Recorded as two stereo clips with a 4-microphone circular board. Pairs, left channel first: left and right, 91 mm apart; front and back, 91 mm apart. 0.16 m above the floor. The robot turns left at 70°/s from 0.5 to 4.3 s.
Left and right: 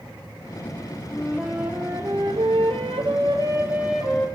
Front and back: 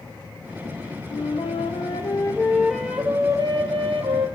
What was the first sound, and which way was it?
A flute, 25° left.